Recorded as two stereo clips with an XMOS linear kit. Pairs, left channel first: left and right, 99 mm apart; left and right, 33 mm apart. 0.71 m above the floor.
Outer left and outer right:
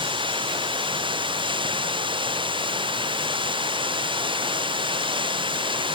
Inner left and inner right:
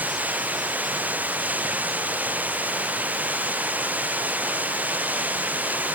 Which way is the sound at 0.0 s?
50° right (ahead or behind).